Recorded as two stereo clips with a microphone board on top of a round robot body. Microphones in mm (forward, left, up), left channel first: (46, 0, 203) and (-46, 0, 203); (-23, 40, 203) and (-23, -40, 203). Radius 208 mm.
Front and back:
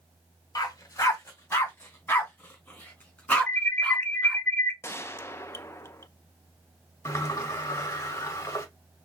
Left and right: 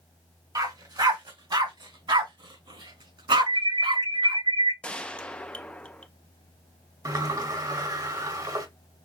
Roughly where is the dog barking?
Ahead right.